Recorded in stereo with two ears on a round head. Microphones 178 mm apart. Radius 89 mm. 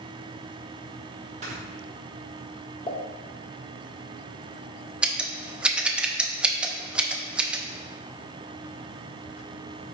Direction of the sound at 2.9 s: 25° left (ahead or behind).